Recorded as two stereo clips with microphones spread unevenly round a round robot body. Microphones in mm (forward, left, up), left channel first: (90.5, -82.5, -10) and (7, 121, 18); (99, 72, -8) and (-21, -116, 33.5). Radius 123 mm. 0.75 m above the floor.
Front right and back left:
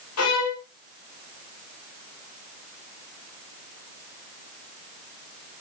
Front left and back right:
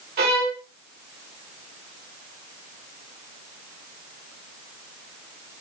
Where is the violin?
75° right, 4 m.